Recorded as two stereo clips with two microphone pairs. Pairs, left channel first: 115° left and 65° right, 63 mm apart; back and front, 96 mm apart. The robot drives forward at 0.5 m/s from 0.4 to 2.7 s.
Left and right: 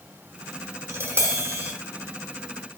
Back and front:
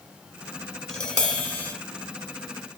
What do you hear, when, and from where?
0.9 s tapping: 100° right, 2.0 m; by 1.7 s 110° right, 2 m